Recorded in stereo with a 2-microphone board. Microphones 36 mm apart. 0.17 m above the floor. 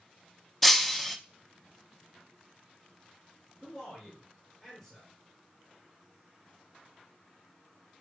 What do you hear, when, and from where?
0.6 s breaking glass: 5° left (ahead or behind), 0.7 m
3.6 s a man speaking: centre (ahead or behind), 3.5 m